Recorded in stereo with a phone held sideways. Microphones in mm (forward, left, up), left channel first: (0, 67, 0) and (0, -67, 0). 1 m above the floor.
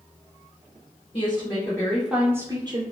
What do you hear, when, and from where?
1.1 s a woman speaking: 45° left (ahead or behind), 0.9 m; by 2.8 s 40° right (ahead or behind), 0.8 m